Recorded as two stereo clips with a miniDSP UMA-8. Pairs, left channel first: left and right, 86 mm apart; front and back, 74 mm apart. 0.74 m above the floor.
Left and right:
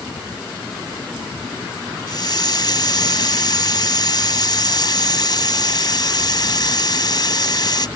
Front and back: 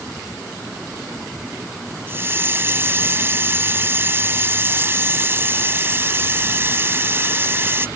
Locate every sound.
2.1 s a hiss: 120° left